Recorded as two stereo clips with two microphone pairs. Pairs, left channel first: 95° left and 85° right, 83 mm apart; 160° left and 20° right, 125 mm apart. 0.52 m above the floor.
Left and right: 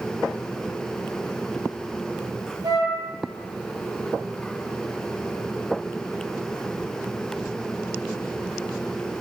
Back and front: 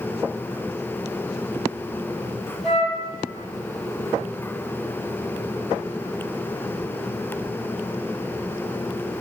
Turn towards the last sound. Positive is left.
turn(degrees=-110)